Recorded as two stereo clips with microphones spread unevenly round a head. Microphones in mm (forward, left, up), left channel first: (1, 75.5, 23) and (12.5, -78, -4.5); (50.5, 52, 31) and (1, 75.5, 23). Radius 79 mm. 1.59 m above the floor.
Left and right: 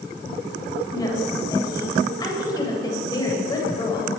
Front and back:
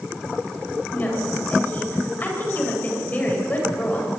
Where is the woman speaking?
30° left, 9.5 m.